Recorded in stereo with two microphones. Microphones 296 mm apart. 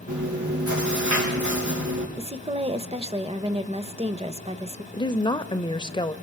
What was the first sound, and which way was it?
Chewing, 75° right (ahead or behind).